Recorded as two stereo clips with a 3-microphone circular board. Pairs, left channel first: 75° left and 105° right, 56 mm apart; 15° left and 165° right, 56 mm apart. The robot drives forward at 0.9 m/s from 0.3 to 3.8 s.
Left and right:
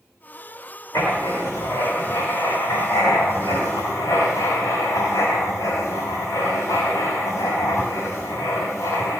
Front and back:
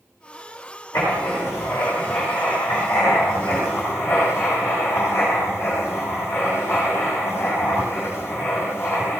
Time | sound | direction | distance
0.9 | writing | 45° left | 8 m